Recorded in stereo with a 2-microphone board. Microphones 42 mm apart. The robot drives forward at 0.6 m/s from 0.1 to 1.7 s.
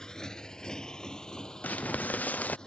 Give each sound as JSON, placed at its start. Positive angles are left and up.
{"t": 0.0, "sound": "a motorcycle", "side_deg": 15}
{"t": 1.6, "sound": "crumpling", "side_deg": 45}